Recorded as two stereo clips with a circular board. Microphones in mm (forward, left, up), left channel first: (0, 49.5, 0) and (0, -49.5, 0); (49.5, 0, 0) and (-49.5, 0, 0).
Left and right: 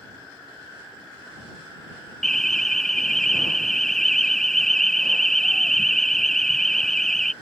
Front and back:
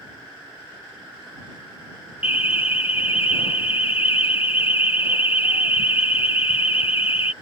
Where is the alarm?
5° left.